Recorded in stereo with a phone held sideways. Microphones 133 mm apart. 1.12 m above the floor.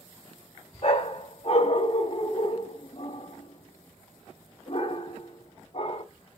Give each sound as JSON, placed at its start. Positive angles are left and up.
{"t": 0.8, "sound": "a dog barking", "side_deg": 45, "distance_m": 0.7}